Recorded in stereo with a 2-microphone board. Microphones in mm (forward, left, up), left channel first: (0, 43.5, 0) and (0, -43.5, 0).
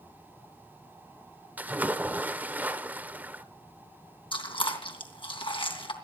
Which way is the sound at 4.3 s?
75° left (ahead or behind).